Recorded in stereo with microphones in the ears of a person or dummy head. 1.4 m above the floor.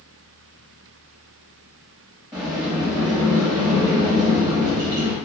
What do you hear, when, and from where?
2.3 s a sliding door: 20° right (ahead or behind), 1.0 m